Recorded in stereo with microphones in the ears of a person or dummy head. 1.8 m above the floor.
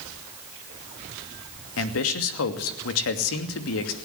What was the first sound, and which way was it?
A man speaking, 75° left (ahead or behind).